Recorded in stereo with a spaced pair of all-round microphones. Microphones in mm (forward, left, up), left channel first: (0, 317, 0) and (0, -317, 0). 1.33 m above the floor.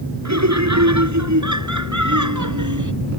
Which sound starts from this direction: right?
Laughter, at 0.2 s.